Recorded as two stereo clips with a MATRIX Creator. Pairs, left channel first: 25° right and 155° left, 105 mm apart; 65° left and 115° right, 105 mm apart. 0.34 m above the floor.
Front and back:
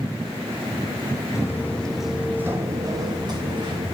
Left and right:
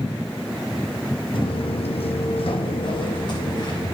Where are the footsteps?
40° left, 0.7 m; by 4.0 s 120° left, 1.5 m.